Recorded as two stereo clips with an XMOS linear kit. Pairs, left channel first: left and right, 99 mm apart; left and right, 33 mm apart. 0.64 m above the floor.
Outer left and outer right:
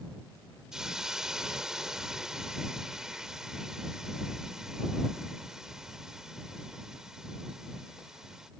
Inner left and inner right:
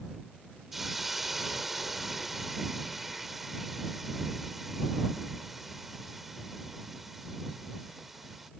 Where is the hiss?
5° right (ahead or behind).